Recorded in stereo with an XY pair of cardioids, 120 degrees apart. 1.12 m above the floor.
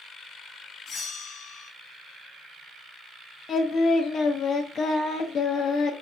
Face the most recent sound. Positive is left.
turn(degrees=50)